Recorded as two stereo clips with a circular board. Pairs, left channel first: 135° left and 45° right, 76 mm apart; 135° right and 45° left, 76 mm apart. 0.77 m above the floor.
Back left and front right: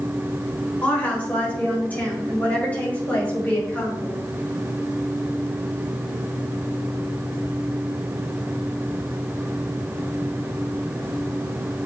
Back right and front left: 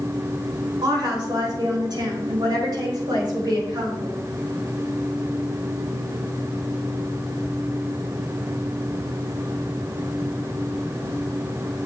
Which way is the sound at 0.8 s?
65° left.